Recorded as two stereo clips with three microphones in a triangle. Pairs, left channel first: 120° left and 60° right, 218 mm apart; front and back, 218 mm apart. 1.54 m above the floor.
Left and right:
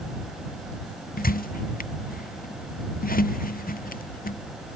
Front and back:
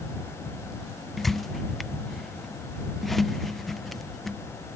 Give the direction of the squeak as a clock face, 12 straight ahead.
9 o'clock.